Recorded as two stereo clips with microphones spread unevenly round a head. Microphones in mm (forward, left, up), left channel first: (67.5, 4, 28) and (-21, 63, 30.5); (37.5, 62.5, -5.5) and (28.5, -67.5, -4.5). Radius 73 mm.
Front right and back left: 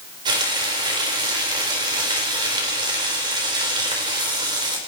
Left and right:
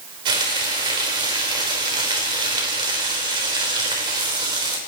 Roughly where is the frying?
Behind right.